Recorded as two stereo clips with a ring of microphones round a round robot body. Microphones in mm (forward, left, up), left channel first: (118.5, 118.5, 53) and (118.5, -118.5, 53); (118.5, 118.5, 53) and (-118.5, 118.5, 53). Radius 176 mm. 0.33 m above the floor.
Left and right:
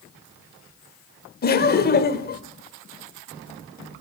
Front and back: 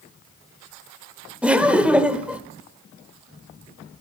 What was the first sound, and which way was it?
Laughter, 95° left.